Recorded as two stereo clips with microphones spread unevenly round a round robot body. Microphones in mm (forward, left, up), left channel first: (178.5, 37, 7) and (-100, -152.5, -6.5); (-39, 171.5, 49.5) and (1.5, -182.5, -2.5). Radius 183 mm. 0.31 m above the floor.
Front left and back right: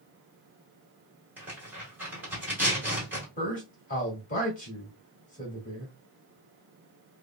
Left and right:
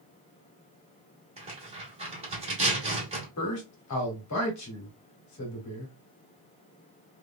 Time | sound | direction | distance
1.4 | tearing paper | 75° right | 1.6 m
3.4 | a man speaking | 90° left | 1.4 m